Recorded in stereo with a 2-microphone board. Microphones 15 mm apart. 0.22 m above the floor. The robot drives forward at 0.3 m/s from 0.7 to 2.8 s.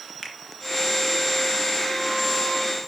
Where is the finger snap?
35° left (ahead or behind), 2 m.